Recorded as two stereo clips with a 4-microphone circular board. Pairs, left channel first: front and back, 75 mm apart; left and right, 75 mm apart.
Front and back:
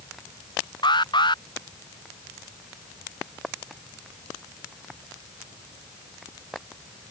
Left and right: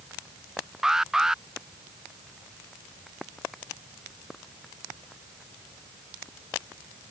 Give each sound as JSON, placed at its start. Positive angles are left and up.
{"t": 0.8, "sound": "an alarm", "azimuth_deg": -5}